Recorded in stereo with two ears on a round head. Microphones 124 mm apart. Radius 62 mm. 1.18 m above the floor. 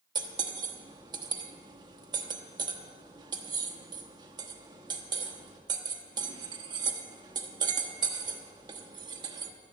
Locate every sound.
0.1 s cutlery clinking: 30° right (ahead or behind), 1.1 m